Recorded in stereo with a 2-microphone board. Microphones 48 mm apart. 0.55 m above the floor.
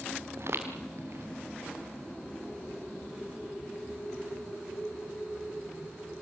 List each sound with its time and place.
0.4 s footsteps: 60° right (ahead or behind), 4 m